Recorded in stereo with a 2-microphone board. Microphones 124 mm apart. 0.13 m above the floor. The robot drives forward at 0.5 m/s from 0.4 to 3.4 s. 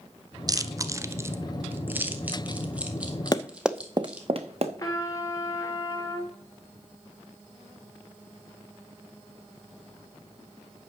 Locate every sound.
0.5 s chewing: 30° right (ahead or behind), 0.5 m; by 4.3 s 10° right (ahead or behind), 1.7 m
3.3 s running footsteps: 30° left (ahead or behind), 0.5 m; by 4.7 s 55° right (ahead or behind), 1.3 m
4.8 s a trumpet: 25° left (ahead or behind), 1.8 m